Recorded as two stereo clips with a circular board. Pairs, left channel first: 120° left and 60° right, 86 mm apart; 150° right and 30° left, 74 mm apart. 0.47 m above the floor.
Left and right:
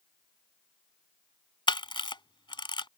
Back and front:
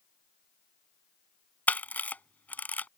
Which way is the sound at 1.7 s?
140° left.